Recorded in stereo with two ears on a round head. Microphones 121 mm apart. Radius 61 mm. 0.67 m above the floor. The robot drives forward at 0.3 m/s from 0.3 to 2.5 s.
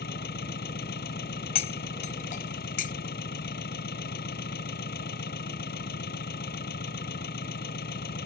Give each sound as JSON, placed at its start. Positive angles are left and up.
{"t": 0.0, "sound": "an engine running", "side_deg": 85}
{"t": 1.6, "sound": "cutlery clinking", "side_deg": 45}